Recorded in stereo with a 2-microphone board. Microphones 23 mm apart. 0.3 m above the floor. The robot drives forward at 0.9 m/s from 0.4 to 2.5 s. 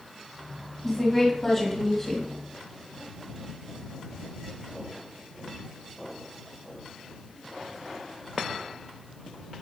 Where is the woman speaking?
10° left (ahead or behind), 2.5 m; by 2.3 s 15° left (ahead or behind), 1.5 m.